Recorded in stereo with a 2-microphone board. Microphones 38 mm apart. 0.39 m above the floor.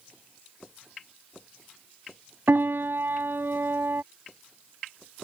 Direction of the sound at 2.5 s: 70° right (ahead or behind).